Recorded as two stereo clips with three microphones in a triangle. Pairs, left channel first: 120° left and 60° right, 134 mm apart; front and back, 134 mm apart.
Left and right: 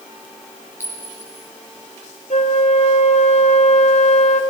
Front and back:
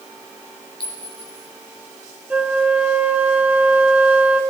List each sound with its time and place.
0.8 s a clink: 50° left, 2.5 m
2.3 s a flute: 100° left, 0.7 m